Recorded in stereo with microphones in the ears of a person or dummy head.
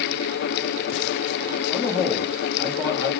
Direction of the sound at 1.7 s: 20° left (ahead or behind).